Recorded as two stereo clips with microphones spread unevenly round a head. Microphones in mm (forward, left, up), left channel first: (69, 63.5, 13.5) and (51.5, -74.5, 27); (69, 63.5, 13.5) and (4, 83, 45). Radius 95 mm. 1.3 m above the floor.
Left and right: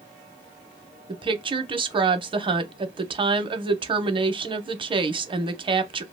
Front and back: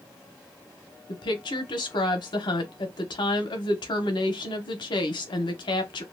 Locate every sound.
1.1 s a woman speaking: 40° right, 0.7 m